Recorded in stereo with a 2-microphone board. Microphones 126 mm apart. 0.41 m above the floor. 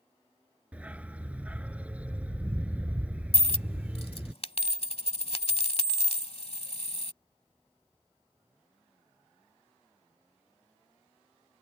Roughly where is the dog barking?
Centre.